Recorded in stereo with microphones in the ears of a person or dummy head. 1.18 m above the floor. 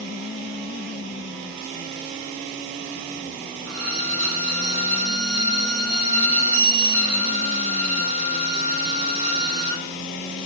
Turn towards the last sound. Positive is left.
turn(degrees=-85)